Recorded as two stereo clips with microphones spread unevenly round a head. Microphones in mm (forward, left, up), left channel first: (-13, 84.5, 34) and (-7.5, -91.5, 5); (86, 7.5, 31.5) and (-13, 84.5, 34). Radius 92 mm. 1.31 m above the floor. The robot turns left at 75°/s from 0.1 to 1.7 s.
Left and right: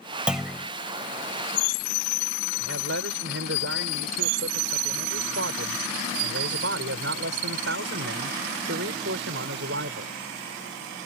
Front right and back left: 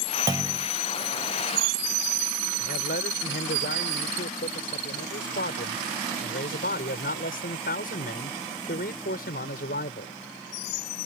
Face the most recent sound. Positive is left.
turn(degrees=-60)